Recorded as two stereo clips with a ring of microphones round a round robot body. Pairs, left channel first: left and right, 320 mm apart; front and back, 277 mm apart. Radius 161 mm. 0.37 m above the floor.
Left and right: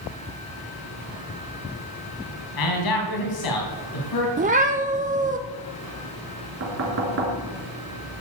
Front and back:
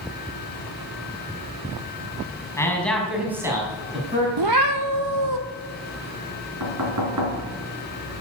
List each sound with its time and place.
2.6 s a man speaking: 80° left, 3 m; by 4.3 s 120° left, 3.5 m
4.4 s a cat meowing: 155° right, 1.1 m
6.6 s knocking: 140° right, 3.5 m